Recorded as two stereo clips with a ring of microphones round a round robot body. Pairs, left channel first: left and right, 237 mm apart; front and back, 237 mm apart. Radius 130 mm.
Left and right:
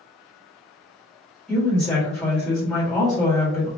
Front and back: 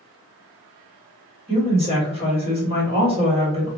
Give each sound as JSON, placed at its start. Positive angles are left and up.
{"t": 1.5, "sound": "a woman speaking", "azimuth_deg": 170, "distance_m": 1.4}